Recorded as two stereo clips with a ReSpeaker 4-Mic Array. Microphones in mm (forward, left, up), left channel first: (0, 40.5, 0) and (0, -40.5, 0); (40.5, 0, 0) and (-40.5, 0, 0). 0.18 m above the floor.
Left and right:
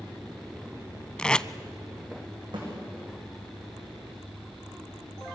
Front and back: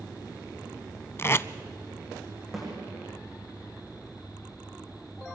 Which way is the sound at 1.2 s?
20° left.